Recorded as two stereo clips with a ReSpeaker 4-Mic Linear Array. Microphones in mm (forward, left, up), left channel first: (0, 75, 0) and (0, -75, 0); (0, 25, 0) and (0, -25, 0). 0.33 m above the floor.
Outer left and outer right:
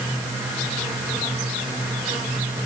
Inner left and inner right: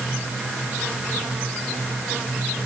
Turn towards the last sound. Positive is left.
No sound to turn to.